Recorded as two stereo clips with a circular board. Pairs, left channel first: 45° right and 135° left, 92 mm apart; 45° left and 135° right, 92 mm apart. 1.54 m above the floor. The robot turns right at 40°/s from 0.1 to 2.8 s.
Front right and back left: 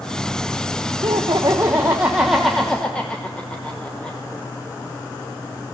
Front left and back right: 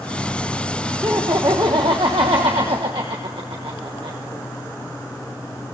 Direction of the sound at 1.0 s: 165° left.